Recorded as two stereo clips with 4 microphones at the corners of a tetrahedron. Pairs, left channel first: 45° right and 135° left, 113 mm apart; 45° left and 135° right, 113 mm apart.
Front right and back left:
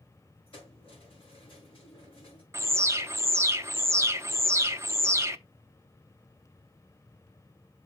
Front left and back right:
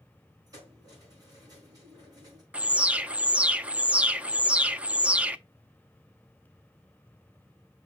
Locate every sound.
0.5 s keys jangling: 80° right, 5.5 m
2.5 s an alarm: 155° left, 0.5 m